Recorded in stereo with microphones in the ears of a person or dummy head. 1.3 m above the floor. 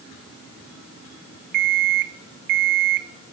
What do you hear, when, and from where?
1.5 s an alarm clock: 45° right (ahead or behind), 0.5 m